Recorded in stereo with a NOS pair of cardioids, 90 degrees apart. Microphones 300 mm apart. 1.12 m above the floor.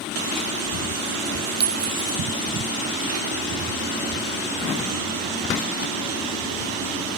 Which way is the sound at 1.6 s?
30° right.